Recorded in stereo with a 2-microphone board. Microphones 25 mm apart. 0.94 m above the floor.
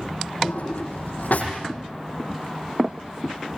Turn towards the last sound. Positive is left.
turn(degrees=75)  # may be behind; listen again after turning